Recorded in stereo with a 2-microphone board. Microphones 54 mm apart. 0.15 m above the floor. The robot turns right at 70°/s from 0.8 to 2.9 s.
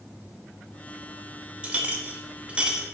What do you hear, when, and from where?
1.6 s a clink: 20° right (ahead or behind), 0.9 m; by 2.9 s 15° right (ahead or behind), 0.9 m